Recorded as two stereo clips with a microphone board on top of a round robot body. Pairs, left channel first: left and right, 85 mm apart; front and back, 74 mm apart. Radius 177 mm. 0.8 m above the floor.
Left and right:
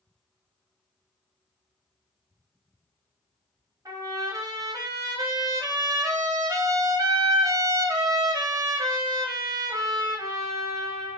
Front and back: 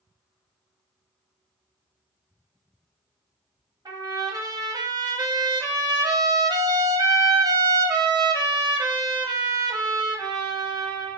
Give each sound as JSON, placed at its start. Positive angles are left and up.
{"t": 3.9, "sound": "a trumpet", "azimuth_deg": -145, "distance_m": 0.6}